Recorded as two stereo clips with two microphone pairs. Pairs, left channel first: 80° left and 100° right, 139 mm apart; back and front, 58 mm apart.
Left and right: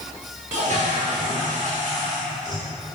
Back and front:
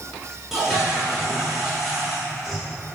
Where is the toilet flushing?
85° right, 1.1 m.